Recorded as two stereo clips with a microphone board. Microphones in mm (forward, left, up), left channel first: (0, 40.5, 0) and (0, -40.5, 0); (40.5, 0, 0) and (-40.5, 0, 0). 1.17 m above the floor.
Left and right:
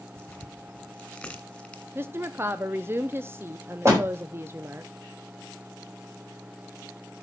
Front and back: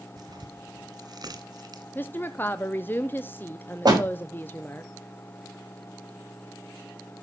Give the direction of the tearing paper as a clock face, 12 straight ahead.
6 o'clock.